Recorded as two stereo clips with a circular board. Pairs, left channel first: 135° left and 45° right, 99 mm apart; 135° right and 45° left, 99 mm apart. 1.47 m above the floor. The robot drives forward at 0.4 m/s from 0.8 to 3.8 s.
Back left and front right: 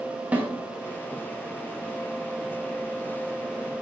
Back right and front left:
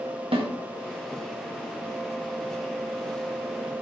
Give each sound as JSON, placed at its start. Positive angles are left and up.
{"t": 0.3, "sound": "a snare drum", "azimuth_deg": 30, "distance_m": 1.9}